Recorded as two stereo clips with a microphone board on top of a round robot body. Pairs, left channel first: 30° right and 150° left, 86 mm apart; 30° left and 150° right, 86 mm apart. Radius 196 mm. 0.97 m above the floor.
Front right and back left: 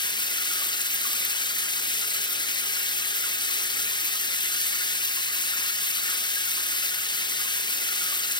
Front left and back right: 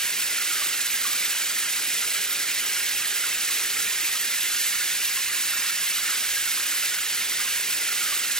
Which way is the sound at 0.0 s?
50° right.